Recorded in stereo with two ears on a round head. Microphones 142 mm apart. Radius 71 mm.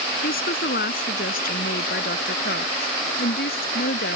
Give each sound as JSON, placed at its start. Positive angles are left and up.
{"t": 0.2, "sound": "a woman speaking", "side_deg": 60}